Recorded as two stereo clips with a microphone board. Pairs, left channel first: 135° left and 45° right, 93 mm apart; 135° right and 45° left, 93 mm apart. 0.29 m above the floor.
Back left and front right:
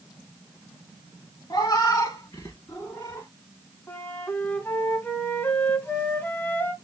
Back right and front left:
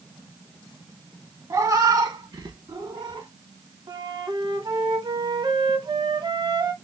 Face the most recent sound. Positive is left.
turn(degrees=70)